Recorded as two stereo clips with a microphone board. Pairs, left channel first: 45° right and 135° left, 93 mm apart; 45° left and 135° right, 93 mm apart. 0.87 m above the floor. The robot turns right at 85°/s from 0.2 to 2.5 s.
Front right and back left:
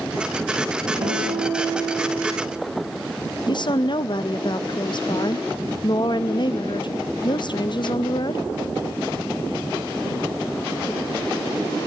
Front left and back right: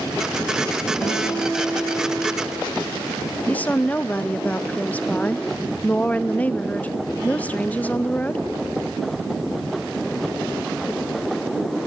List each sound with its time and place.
1.0 s a guitar: 100° left, 5.5 m; by 2.0 s 175° right, 5.5 m
3.5 s a woman speaking: 25° right, 0.5 m